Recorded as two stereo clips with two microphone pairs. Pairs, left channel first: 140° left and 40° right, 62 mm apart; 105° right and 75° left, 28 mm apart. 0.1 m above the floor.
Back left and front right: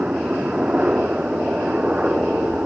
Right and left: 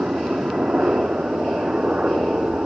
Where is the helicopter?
30° left.